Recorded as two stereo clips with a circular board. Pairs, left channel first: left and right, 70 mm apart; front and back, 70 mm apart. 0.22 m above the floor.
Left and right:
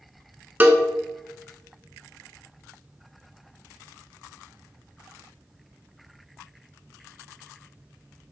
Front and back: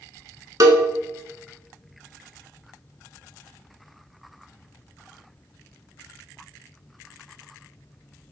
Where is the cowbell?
155° right, 0.6 m.